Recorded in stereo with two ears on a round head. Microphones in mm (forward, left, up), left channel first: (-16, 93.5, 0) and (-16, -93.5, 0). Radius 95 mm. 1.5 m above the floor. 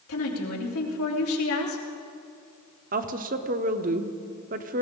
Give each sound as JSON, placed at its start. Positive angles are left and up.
{"t": 0.1, "sound": "a woman speaking", "side_deg": 85, "distance_m": 3.0}
{"t": 2.9, "sound": "a woman speaking", "side_deg": -40, "distance_m": 0.9}